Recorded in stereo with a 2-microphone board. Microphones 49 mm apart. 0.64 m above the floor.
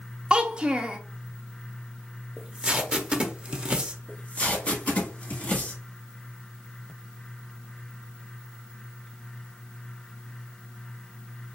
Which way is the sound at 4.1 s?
30° left (ahead or behind).